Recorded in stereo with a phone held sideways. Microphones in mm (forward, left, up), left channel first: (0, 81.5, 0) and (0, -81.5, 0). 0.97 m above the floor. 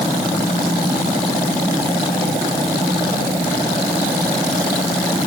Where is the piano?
I don't hear a piano.